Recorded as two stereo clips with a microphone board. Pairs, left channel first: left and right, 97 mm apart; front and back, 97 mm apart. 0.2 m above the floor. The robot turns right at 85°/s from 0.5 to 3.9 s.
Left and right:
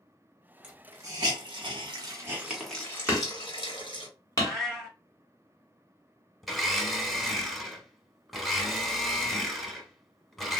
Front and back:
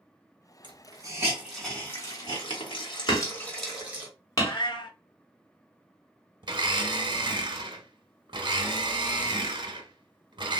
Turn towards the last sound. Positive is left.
turn(degrees=180)